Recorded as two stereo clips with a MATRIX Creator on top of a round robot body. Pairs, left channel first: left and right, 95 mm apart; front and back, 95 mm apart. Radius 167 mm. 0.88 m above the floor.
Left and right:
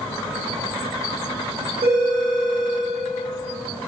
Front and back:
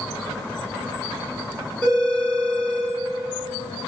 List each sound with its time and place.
1.8 s a phone ringing: 80° right, 1.9 m